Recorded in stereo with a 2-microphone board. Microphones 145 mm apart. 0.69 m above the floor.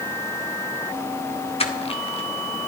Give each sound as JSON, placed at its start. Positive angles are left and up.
{"t": 1.6, "sound": "crushing", "side_deg": 45, "distance_m": 1.7}